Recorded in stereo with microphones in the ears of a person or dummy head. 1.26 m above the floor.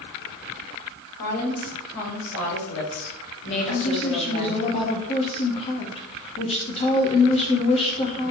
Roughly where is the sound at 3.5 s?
Left.